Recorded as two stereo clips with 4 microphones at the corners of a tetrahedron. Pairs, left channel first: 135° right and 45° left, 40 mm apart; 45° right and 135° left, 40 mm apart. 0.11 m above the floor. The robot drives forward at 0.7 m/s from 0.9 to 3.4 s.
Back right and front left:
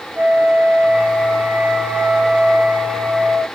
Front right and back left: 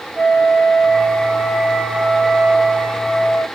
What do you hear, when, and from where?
0.1 s a flute: 60° left, 6 m; by 3.4 s 75° left, 5 m